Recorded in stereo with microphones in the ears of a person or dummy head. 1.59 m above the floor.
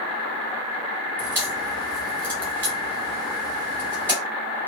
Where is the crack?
10° left (ahead or behind), 1.3 m.